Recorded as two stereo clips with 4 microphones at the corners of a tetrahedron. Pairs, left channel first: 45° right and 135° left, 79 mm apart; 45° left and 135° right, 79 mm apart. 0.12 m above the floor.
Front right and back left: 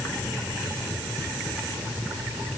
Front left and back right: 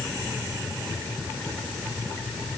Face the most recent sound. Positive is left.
No sound to turn to.